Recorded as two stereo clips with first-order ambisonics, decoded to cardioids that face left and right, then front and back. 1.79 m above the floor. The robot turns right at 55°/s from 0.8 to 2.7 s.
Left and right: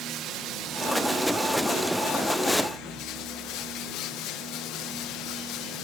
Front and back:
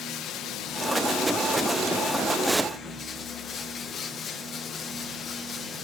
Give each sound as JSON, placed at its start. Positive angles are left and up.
{"t": 0.0, "sound": "running water", "azimuth_deg": -45, "distance_m": 1.3}